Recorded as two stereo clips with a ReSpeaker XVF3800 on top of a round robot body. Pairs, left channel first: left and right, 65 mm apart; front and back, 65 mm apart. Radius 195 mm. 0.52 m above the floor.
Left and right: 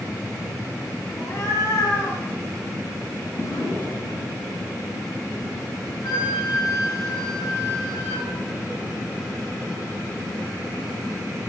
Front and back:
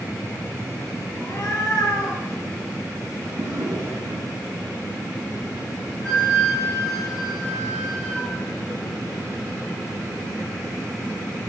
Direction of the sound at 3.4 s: 125° left.